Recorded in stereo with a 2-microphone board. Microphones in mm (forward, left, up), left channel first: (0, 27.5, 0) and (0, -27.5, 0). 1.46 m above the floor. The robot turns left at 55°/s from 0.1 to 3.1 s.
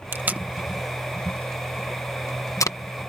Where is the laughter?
I don't hear laughter.